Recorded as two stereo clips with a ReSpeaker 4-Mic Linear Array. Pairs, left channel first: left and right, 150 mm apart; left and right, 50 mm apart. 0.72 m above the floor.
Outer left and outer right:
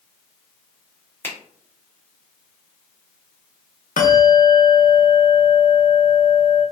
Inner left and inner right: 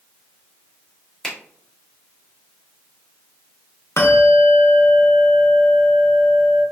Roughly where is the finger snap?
Centre.